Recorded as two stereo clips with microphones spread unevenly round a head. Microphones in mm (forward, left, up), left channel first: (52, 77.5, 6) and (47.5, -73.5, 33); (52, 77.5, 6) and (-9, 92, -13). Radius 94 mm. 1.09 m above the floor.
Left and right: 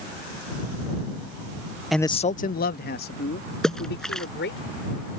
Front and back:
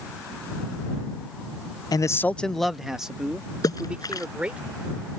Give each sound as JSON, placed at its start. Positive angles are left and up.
{"t": 1.9, "sound": "a man speaking", "azimuth_deg": 5}
{"t": 3.6, "sound": "a splash", "azimuth_deg": 0}